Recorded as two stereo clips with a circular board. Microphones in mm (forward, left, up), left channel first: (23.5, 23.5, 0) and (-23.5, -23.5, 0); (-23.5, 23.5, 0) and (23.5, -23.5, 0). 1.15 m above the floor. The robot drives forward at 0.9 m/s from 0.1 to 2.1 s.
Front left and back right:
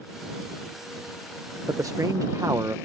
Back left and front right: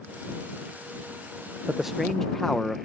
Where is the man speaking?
115° right; by 2.8 s 140° right.